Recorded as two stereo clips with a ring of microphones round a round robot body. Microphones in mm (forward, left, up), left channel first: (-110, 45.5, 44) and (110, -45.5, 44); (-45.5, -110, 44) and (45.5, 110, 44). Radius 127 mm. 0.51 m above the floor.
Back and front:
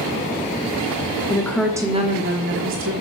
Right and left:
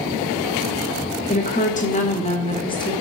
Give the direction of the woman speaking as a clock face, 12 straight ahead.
5 o'clock.